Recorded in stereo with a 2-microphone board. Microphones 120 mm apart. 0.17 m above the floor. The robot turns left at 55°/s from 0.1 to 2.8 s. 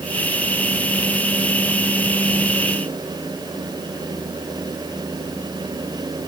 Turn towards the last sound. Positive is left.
No sound to turn to.